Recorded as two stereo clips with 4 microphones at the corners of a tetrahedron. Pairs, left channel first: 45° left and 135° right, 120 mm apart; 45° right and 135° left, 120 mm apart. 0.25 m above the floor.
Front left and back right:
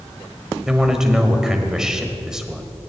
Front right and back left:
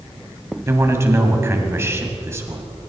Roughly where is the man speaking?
Behind left.